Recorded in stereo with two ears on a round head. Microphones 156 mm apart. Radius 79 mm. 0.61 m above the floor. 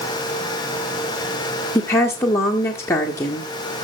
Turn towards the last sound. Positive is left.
turn(degrees=15)  # may be behind; listen again after turning